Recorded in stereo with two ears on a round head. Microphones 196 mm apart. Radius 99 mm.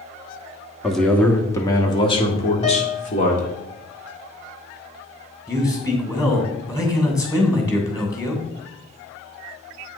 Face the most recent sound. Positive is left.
turn(degrees=15)  # may be behind; listen again after turning